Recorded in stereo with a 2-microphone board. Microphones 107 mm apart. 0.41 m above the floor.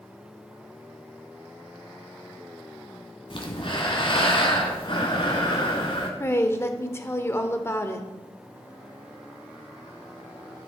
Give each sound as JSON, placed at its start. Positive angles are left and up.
{"t": 3.3, "sound": "breathing", "side_deg": 50, "distance_m": 1.4}
{"t": 6.2, "sound": "a woman speaking", "side_deg": 25, "distance_m": 0.8}